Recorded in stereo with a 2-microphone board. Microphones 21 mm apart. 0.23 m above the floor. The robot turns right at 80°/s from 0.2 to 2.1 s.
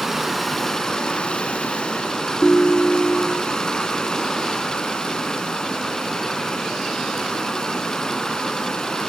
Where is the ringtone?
35° left (ahead or behind), 0.6 m.